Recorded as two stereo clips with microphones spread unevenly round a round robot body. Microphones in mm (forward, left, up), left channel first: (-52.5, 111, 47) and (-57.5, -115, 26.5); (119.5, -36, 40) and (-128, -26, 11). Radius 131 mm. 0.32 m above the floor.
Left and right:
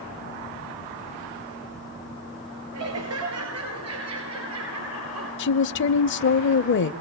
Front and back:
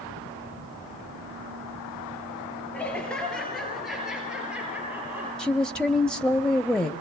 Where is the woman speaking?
90° left, 1.3 m.